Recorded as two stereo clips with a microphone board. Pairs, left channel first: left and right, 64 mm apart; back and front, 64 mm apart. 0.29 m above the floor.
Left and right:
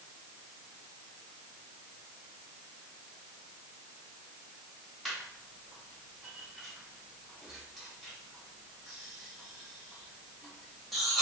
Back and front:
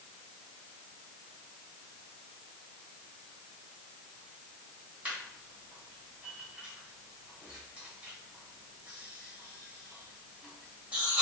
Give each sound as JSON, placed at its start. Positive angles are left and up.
{"t": 5.0, "sound": "laughter", "azimuth_deg": 0, "distance_m": 0.9}